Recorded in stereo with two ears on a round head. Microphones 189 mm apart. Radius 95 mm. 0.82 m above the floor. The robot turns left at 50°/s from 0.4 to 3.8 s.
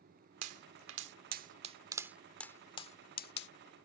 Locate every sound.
0.4 s a pop: 85° right; by 3.5 s 60° left (ahead or behind)